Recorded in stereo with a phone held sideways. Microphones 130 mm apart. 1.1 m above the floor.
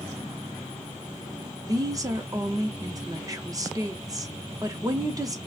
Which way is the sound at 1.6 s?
30° right (ahead or behind).